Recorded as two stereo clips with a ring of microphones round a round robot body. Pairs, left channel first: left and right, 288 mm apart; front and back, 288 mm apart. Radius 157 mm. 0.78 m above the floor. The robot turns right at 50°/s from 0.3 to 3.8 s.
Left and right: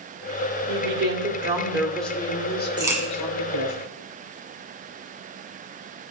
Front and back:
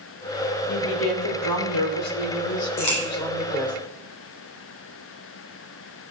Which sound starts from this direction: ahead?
A crack, at 2.8 s.